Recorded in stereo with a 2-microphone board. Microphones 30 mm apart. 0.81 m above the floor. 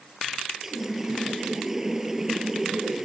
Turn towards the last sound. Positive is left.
turn(degrees=-15)  # may be behind; listen again after turning